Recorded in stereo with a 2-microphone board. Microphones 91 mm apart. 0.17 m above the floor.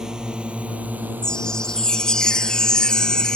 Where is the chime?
10° left (ahead or behind).